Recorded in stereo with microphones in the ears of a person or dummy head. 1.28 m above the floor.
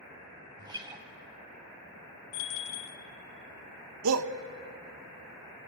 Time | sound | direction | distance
0.6 | a guitar | 25° right (ahead or behind) | 2.5 m
2.3 | a bell | 75° left (ahead or behind) | 2.0 m
4.0 | a shout | 85° right | 1.3 m